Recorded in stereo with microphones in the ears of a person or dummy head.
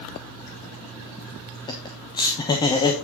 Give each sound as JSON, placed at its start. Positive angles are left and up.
{"t": 1.7, "sound": "laughter", "side_deg": 20, "distance_m": 1.0}